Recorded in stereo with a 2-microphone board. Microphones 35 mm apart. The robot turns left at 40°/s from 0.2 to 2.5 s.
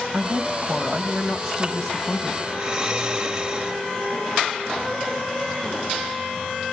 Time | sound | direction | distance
0.1 | a woman speaking | 130° right | 2.5 m
2.5 | snoring | 30° right (ahead or behind) | 2 m